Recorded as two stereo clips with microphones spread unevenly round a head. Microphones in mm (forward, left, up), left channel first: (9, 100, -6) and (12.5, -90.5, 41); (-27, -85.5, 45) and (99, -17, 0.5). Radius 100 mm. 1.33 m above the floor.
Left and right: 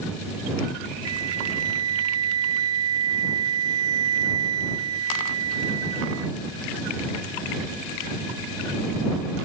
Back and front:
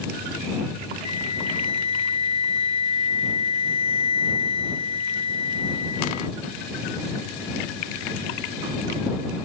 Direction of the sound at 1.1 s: 105° right.